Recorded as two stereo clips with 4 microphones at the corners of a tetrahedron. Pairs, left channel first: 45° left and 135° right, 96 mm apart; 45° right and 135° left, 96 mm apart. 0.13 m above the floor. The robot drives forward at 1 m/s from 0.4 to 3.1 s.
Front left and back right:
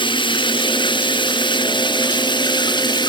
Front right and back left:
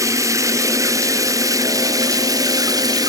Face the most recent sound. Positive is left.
turn(degrees=85)